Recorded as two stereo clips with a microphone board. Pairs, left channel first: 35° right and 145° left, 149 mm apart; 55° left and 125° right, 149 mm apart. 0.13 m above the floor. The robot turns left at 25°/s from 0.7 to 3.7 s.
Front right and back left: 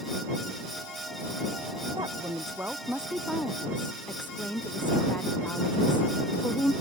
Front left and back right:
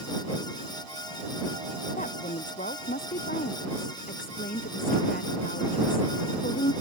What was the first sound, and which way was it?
A woman speaking, 85° left.